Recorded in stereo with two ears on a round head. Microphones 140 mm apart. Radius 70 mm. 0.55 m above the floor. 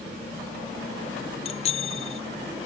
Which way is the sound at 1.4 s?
40° left (ahead or behind).